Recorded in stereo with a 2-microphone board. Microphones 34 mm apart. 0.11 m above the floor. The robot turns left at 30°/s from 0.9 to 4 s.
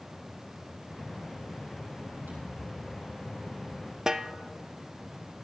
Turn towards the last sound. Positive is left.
turn(degrees=-15)  # may be behind; listen again after turning